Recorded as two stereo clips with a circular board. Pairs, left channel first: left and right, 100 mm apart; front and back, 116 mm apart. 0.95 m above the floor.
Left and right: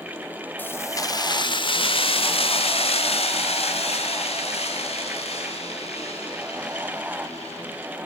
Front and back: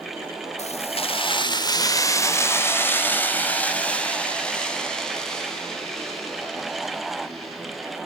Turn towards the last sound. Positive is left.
turn(degrees=90)